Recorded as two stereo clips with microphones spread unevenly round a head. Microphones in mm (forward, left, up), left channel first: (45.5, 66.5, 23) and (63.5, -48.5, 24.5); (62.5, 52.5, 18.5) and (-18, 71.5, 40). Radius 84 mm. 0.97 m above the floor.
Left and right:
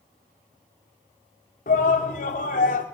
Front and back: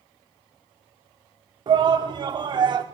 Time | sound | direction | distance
1.7 | a shout | 130° left | 2.5 m